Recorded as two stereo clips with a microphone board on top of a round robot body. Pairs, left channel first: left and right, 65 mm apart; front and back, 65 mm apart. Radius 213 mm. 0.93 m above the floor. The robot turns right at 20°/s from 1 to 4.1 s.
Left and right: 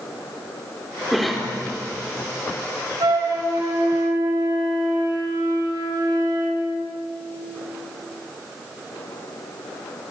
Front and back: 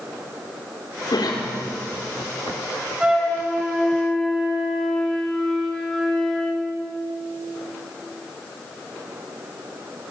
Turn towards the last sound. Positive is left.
turn(degrees=-85)